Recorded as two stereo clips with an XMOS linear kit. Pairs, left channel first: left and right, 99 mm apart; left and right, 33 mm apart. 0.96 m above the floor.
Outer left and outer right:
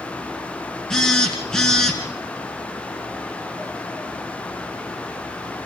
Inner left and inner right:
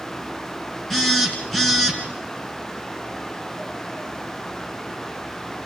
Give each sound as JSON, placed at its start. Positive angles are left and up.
{"t": 0.9, "sound": "a phone buzzing", "side_deg": 5, "distance_m": 3.5}